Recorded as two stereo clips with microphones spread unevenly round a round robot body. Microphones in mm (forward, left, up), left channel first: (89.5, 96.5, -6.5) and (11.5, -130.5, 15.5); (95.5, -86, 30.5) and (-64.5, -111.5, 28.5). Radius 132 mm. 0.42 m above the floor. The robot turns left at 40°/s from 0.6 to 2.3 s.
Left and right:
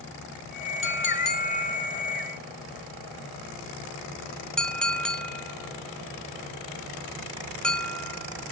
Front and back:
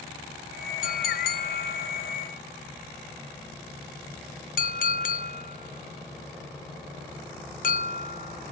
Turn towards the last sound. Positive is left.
turn(degrees=-10)